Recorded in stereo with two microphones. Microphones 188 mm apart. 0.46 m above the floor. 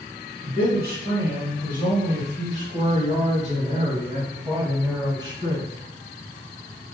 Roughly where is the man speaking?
Right.